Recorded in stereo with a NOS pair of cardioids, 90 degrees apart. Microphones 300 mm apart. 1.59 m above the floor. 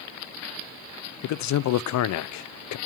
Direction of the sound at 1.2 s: 70° left.